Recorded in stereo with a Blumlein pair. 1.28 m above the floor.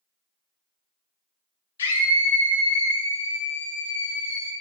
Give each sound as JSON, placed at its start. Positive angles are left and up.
{"t": 1.8, "sound": "a scream", "azimuth_deg": 65, "distance_m": 1.8}